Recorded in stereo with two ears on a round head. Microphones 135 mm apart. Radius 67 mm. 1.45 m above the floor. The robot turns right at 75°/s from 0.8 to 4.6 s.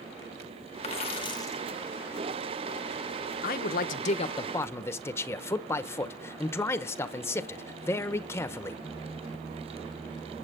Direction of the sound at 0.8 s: 100° left.